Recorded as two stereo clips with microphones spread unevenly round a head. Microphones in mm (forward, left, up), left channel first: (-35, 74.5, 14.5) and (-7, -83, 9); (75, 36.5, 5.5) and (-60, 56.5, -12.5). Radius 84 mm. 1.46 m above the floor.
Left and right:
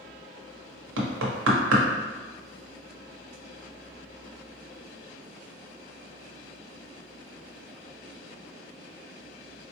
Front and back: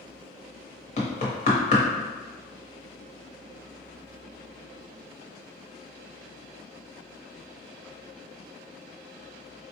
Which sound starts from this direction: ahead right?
Knocking, at 1.0 s.